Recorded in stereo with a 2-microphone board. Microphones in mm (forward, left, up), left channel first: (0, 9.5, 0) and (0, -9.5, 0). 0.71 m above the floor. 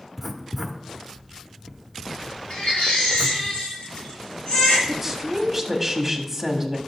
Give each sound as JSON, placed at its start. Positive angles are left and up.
{"t": 0.2, "sound": "writing", "side_deg": 0, "distance_m": 0.8}
{"t": 2.5, "sound": "a baby crying", "side_deg": 65, "distance_m": 4.0}
{"t": 4.9, "sound": "a woman speaking", "side_deg": -5, "distance_m": 1.3}